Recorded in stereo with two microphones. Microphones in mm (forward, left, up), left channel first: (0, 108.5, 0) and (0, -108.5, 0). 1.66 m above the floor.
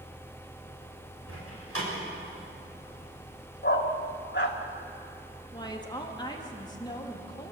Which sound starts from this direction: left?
A dog barking, at 3.6 s.